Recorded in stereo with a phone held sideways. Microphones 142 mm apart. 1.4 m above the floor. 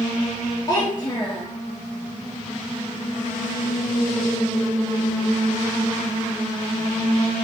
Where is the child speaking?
30° left (ahead or behind), 2.5 m.